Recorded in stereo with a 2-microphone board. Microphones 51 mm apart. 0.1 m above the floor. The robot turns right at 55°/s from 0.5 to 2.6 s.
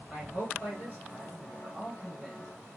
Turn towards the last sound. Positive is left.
turn(degrees=-20)